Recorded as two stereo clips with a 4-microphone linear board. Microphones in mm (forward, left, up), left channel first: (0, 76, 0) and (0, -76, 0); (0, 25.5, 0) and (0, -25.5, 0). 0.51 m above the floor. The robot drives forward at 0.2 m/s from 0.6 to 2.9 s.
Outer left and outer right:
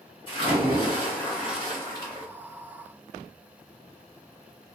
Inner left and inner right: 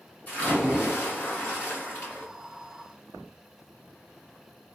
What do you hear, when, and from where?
0.3 s a splash: 35° left (ahead or behind), 1.8 m; by 2.3 s 30° left (ahead or behind), 2.0 m